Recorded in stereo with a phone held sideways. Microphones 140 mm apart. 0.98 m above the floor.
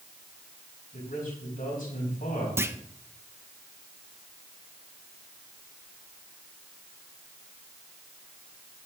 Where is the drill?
I don't hear a drill.